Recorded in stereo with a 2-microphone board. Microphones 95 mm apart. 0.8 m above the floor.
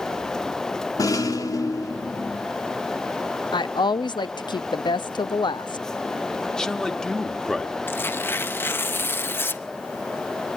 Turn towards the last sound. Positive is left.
turn(degrees=25)  # may be behind; listen again after turning